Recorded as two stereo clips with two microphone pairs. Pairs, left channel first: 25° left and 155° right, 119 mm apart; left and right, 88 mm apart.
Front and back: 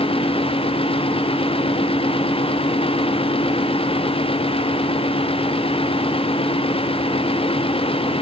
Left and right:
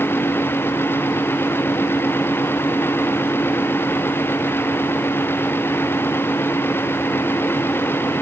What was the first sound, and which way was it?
Only background noise.